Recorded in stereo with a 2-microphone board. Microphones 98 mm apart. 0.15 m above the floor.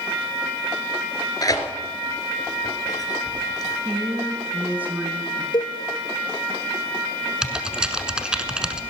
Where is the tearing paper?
40° left (ahead or behind), 1.8 m.